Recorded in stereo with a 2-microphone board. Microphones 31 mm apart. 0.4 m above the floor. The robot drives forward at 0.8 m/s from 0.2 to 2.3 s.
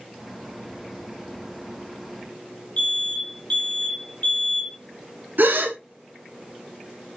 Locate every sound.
2.8 s an alarm: 35° left (ahead or behind), 1.3 m
5.4 s a gasp: 80° right, 0.7 m